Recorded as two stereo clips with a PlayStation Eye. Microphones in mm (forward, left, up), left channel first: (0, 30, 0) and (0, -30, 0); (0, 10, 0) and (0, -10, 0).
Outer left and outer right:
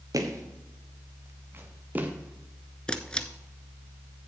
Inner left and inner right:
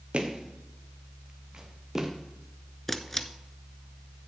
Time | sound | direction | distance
0.1 | footsteps | 70° right (ahead or behind) | 1.9 m
2.9 | a camera shutter | 15° left (ahead or behind) | 0.7 m